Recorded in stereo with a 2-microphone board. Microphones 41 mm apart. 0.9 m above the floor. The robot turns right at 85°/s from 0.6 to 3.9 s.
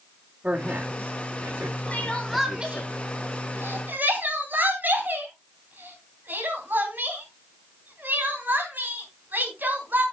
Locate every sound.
0.4 s a man speaking: 145° right, 1.9 m; by 2.9 s 50° left, 1.9 m
1.9 s crying: 40° left (ahead or behind), 3 m; by 10.0 s 50° right (ahead or behind), 3 m